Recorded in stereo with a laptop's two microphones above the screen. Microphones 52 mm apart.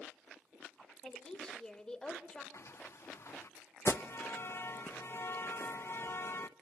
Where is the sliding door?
60° left (ahead or behind), 0.8 m.